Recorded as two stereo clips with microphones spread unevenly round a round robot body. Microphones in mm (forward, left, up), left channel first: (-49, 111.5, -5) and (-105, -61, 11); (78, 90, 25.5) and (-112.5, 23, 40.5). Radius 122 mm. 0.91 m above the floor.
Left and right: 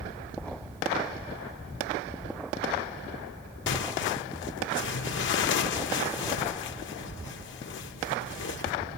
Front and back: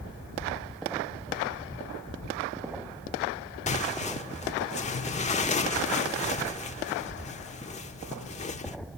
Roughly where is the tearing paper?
Left.